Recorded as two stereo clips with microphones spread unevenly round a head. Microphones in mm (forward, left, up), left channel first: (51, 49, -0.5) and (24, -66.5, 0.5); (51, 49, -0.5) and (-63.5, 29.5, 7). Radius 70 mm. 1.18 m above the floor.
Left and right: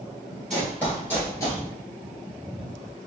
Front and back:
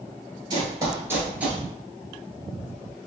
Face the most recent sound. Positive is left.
turn(degrees=115)